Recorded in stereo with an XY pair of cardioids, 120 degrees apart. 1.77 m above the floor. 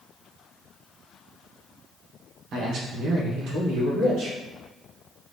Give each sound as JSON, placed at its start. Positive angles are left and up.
{"t": 2.5, "sound": "a man speaking", "azimuth_deg": -55, "distance_m": 1.5}